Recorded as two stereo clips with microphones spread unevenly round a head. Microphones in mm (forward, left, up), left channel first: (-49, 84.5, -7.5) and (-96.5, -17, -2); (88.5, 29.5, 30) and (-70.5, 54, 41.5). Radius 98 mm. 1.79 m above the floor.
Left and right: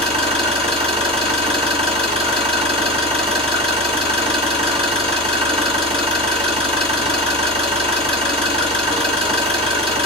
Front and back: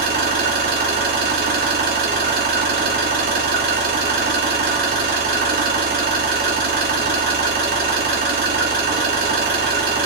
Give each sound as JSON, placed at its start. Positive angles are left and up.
{"t": 0.0, "sound": "an engine running", "azimuth_deg": -150, "distance_m": 3.5}